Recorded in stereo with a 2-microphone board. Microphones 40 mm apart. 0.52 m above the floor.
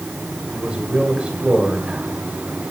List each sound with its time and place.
0.5 s a man speaking: 25° right (ahead or behind), 2 m